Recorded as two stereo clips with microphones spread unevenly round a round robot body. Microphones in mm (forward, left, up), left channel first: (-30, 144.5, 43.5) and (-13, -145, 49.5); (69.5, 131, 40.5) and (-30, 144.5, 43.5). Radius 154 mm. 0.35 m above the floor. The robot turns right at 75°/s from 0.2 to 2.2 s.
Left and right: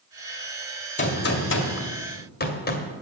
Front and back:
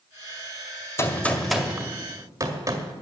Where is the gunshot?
40° left, 2 m; by 2.9 s 130° left, 2 m.